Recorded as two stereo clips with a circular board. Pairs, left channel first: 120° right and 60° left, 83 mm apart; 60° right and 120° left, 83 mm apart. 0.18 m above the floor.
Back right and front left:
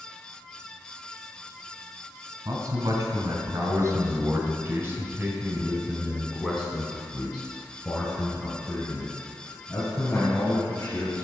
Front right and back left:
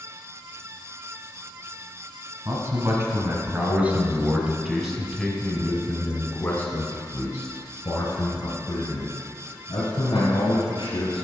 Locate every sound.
2.5 s a man speaking: 85° left, 2.5 m; by 11.2 s 65° right, 3.5 m